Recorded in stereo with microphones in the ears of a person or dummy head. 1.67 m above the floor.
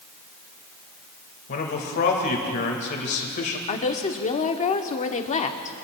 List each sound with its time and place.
1.5 s a man speaking: 50° left (ahead or behind), 1.8 m
3.7 s a woman speaking: 35° left (ahead or behind), 0.9 m